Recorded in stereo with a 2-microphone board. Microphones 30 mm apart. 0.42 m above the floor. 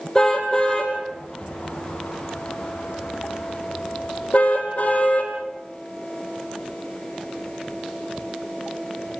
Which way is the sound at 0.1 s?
20° left (ahead or behind).